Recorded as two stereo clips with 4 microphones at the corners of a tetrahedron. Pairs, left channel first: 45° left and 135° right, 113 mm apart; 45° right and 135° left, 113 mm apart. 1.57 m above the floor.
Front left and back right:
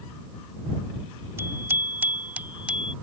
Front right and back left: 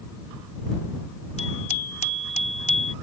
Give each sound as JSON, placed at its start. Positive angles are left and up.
{"t": 1.4, "sound": "a bicycle bell", "azimuth_deg": -65}